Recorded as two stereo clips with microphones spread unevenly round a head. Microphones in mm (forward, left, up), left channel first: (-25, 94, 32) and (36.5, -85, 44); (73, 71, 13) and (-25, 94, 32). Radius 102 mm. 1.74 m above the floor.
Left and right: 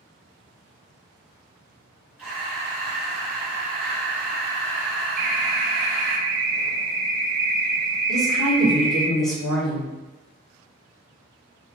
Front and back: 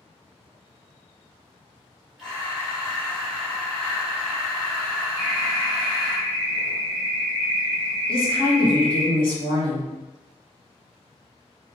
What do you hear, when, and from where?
2.2 s breathing: 140° right, 0.8 m
5.2 s an alarm: 115° right, 0.5 m
8.1 s a woman speaking: 20° left, 1.3 m